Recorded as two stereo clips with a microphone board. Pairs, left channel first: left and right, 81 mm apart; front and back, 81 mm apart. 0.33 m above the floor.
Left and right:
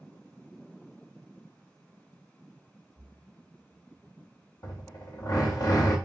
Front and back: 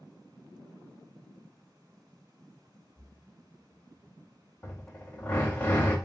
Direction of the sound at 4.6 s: 65° left.